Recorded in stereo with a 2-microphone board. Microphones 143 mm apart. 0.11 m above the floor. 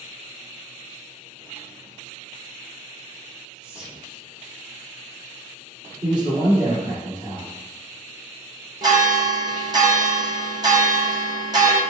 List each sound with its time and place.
3.6 s whispering: 5° right (ahead or behind), 1.1 m
6.0 s a man speaking: 35° right (ahead or behind), 1.8 m
8.8 s a bell: 30° right (ahead or behind), 0.7 m